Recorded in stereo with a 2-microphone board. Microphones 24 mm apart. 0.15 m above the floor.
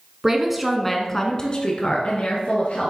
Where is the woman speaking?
20° right (ahead or behind), 1.3 m; by 2.9 s 60° left (ahead or behind), 2 m.